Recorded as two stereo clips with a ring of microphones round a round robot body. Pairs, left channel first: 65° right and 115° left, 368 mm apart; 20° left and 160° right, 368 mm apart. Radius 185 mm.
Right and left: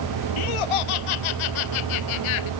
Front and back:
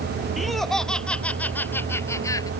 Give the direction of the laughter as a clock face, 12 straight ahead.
2 o'clock.